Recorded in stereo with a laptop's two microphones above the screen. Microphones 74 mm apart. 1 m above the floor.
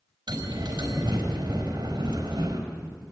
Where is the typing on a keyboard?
I don't hear typing on a keyboard.